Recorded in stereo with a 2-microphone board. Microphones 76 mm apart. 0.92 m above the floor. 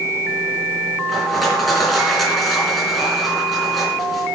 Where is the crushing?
Centre (ahead or behind), 3 m.